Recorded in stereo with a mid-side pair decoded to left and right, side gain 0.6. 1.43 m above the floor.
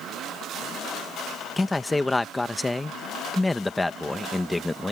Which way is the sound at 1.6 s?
10° left.